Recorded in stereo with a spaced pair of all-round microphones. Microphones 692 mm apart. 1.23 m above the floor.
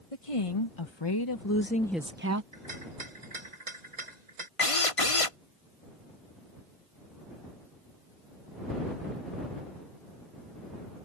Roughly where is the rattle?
Right.